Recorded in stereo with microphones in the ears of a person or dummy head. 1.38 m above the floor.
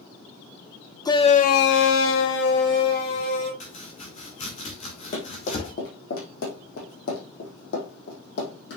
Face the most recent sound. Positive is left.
turn(degrees=70)  # may be behind; listen again after turning